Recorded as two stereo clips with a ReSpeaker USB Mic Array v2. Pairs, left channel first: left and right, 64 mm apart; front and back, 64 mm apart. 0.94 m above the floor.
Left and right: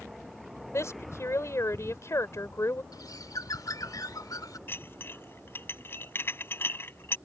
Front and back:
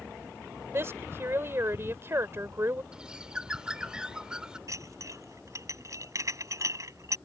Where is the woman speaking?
130° left.